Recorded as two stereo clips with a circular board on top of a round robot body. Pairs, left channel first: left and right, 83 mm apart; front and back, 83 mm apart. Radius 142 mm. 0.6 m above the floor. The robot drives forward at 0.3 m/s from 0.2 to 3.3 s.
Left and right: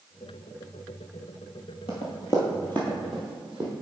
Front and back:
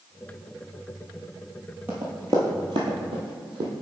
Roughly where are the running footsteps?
Left.